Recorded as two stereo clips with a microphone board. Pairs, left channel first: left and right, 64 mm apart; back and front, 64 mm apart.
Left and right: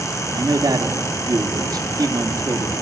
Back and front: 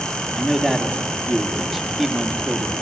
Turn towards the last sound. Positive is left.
turn(degrees=-90)